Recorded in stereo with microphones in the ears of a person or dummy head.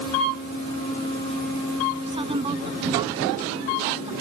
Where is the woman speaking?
30° right (ahead or behind).